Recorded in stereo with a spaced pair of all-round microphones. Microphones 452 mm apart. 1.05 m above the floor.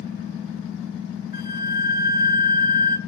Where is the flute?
55° left (ahead or behind), 0.6 m.